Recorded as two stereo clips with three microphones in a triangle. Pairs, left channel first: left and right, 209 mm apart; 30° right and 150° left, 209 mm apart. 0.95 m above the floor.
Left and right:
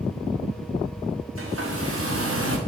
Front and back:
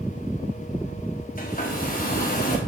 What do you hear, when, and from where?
1.4 s a hair dryer: 80° right, 1.3 m